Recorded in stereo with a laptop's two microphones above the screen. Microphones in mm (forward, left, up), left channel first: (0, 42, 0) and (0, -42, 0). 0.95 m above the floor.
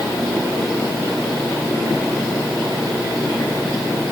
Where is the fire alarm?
No fire alarm in this recording.